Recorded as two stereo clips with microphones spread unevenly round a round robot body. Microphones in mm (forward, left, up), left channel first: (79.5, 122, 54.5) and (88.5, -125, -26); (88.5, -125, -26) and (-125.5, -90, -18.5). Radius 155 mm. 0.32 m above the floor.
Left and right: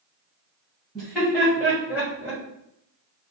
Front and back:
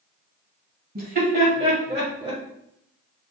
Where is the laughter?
160° right, 1.9 m; by 2.4 s 130° right, 1.6 m.